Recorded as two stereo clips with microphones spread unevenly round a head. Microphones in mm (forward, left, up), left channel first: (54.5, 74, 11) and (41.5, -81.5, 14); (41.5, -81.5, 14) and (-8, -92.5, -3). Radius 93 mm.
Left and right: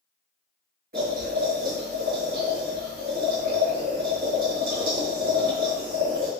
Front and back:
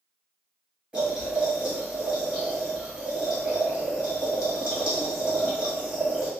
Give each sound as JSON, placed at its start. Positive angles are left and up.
{"t": 0.9, "sound": "boiling", "azimuth_deg": -95, "distance_m": 1.9}